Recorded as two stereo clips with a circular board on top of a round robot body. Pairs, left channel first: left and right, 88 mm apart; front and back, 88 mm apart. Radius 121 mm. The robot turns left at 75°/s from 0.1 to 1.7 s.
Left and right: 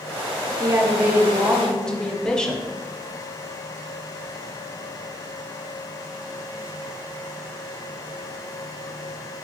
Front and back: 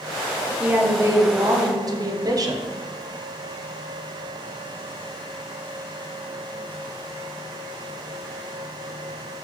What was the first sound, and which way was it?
A woman speaking, 105° right.